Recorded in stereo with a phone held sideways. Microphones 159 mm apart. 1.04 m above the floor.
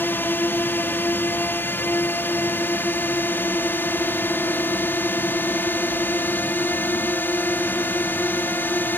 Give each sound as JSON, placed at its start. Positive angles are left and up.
{"t": 0.0, "sound": "a drone", "side_deg": 15}